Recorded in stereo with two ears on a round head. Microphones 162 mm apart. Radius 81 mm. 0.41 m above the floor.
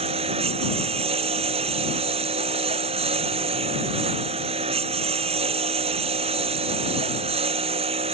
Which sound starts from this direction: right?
A lawn mower, at 0.0 s.